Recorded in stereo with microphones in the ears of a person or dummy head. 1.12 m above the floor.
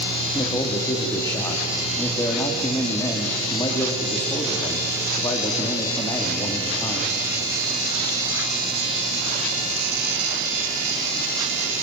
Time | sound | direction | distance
0.3 | a man speaking | 20° left (ahead or behind) | 2.5 m